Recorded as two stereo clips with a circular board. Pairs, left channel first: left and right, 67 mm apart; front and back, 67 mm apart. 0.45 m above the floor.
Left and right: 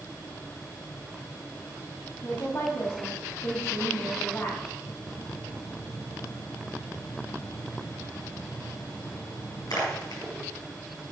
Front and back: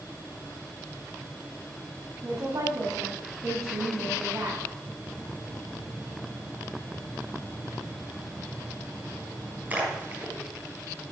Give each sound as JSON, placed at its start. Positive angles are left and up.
{"t": 2.2, "sound": "a woman speaking", "azimuth_deg": 140, "distance_m": 2.5}
{"t": 4.9, "sound": "a splash", "azimuth_deg": 110, "distance_m": 4.5}